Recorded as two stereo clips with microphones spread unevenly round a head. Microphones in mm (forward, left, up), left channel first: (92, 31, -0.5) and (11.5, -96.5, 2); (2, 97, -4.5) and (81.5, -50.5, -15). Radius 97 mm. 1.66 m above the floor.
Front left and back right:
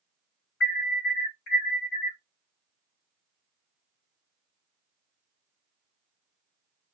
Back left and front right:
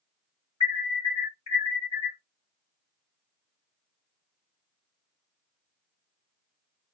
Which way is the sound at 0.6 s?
70° left.